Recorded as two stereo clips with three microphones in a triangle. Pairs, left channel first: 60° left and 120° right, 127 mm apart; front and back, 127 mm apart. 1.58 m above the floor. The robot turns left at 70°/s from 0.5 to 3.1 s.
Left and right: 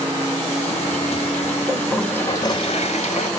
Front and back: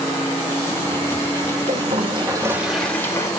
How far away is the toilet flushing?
About 2.5 m.